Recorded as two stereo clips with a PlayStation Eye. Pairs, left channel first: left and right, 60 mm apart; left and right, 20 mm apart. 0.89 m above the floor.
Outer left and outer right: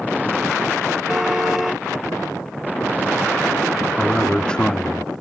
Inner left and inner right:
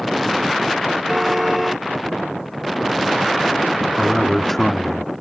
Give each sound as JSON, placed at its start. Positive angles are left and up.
{"t": 1.1, "sound": "a car horn", "side_deg": -5}
{"t": 4.0, "sound": "a man speaking", "side_deg": 15}